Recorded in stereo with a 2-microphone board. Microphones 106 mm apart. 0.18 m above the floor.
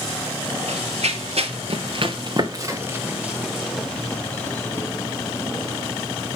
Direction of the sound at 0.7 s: 85° right.